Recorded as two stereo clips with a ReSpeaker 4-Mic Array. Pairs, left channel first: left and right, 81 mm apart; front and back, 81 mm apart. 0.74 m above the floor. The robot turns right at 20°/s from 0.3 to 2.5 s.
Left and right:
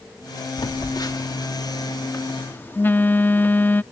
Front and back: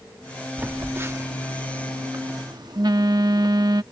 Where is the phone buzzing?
115° left; by 3.8 s 155° left.